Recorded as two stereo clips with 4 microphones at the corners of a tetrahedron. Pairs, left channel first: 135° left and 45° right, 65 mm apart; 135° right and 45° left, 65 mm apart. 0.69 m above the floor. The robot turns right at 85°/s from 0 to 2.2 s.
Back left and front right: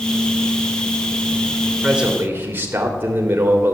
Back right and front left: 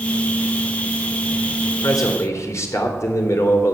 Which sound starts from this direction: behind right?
A man speaking, at 1.8 s.